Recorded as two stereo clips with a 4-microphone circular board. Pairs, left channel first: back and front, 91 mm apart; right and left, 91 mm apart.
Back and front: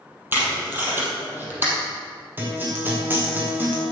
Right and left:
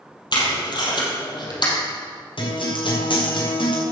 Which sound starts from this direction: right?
A guitar, at 2.4 s.